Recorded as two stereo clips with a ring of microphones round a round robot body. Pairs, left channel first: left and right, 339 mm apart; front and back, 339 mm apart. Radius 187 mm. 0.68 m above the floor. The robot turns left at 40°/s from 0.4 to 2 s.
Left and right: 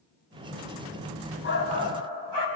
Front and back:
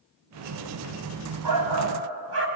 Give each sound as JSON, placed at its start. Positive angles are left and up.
{"t": 1.4, "sound": "a shout", "azimuth_deg": 150, "distance_m": 4.0}